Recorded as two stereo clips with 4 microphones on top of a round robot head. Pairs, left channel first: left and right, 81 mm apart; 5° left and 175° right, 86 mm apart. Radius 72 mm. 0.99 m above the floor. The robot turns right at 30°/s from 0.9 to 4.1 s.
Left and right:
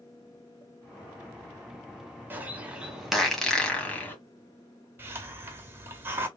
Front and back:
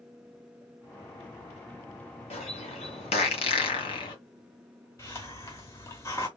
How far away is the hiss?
About 0.8 m.